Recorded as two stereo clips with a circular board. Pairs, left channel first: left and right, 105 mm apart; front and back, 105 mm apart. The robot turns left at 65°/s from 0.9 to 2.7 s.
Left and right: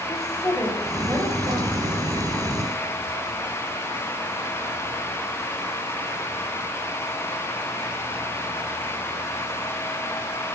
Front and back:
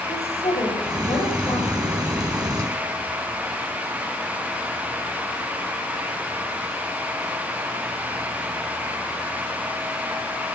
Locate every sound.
0.1 s a woman speaking: straight ahead, 7 m; by 2.2 s 85° right, 7 m